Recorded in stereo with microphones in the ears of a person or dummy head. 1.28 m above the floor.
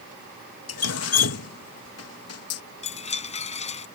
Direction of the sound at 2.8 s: 35° left (ahead or behind).